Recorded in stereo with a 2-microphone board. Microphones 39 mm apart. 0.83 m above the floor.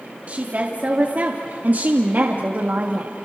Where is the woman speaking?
40° right (ahead or behind), 2 m; by 3.1 s 55° right (ahead or behind), 1.6 m.